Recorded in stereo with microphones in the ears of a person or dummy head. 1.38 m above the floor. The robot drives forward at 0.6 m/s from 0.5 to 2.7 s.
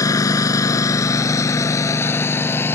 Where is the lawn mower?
20° left (ahead or behind); by 2.8 s 15° left (ahead or behind).